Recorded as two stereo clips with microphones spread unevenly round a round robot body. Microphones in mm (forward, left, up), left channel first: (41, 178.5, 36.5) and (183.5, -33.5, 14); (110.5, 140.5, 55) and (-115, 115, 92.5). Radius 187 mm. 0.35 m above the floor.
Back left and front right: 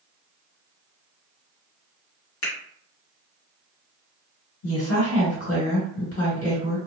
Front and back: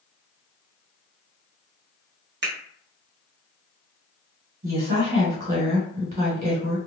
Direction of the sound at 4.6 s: 130° left.